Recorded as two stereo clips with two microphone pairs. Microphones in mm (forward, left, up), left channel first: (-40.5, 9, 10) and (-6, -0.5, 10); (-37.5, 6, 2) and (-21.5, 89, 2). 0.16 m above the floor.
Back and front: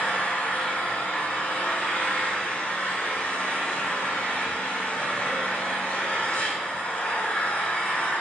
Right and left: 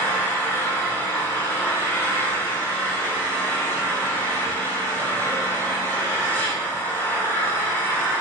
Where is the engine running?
165° right, 5 m.